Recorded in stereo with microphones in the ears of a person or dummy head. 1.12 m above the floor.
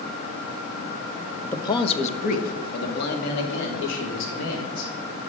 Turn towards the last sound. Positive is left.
turn(degrees=75)  # may be behind; listen again after turning